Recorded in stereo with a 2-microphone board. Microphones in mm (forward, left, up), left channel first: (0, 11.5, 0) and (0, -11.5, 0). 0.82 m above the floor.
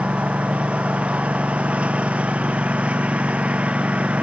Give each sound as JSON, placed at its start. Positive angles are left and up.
{"t": 0.0, "sound": "a lawn mower", "side_deg": -50}